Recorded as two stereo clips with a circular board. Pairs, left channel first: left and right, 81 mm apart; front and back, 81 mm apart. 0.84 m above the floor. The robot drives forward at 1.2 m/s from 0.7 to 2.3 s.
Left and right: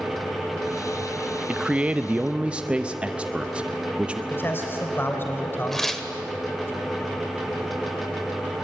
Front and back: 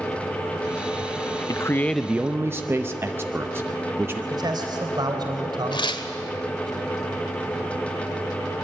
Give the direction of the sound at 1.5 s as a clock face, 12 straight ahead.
1 o'clock.